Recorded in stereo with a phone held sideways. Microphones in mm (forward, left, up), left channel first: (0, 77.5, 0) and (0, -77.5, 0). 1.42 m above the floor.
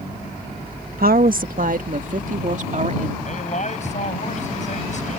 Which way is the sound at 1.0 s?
70° right (ahead or behind).